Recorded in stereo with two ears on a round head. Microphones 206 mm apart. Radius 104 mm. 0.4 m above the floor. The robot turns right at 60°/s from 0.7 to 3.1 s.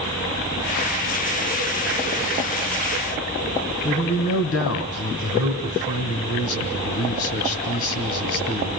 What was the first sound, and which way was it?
A man speaking, 65° left (ahead or behind).